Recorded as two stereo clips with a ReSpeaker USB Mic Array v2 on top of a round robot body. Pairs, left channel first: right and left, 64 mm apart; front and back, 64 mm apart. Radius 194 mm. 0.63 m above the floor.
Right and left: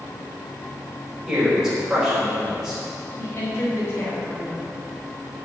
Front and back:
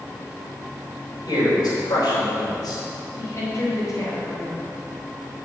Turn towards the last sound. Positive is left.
turn(degrees=-45)